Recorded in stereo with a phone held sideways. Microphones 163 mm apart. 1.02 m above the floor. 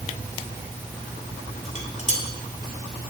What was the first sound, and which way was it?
Dishes clattering, 50° left (ahead or behind).